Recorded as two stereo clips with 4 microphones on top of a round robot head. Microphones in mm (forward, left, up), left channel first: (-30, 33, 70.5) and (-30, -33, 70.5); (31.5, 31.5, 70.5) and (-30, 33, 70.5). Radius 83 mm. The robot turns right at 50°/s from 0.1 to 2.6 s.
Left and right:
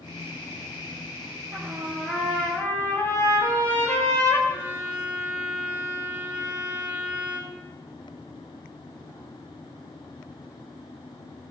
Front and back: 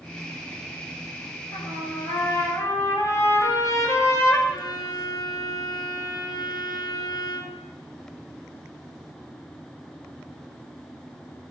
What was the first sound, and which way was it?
A trumpet, 25° right.